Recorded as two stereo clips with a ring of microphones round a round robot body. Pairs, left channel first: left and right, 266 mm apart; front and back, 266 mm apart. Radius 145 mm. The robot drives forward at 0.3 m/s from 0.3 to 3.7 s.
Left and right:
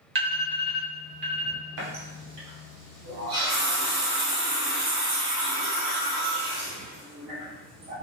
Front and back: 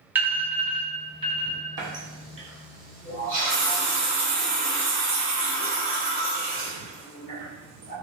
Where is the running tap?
105° right, 1.5 m; by 7.9 s 125° right, 1.7 m.